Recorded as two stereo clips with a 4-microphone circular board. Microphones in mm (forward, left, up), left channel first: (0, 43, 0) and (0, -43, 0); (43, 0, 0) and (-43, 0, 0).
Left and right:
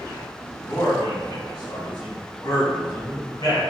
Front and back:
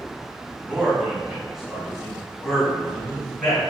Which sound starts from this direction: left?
A man speaking, at 0.7 s.